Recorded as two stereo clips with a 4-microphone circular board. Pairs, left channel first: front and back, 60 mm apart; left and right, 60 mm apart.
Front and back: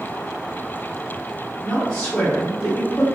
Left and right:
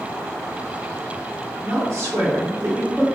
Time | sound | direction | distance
1.6 | a woman speaking | 75° right | 1.4 m